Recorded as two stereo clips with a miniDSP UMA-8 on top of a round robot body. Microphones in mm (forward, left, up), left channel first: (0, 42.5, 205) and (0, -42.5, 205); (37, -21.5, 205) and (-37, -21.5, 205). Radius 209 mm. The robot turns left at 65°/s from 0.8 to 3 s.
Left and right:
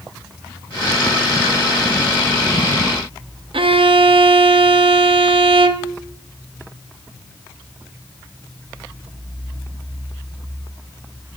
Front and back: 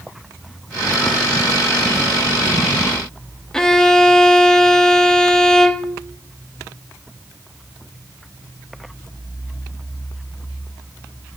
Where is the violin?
85° right, 0.5 m.